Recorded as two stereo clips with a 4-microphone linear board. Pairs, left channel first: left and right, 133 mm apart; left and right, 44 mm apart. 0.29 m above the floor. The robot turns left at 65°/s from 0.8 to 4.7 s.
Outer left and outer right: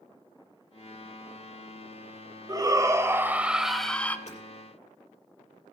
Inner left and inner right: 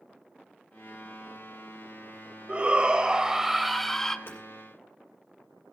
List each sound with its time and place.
2.5 s a shout: 25° right (ahead or behind), 1.0 m; by 4.2 s 15° left (ahead or behind), 1.0 m
4.3 s hammering: 55° left (ahead or behind), 6 m; by 4.4 s 65° left (ahead or behind), 6 m